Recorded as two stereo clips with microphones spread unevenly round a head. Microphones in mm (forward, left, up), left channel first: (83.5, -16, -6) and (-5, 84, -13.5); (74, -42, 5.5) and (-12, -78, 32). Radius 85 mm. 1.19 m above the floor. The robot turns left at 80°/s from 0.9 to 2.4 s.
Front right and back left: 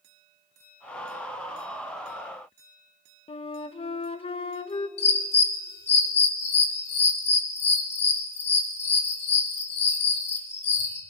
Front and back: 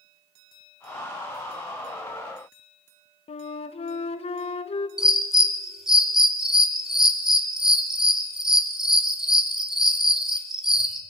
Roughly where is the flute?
Ahead.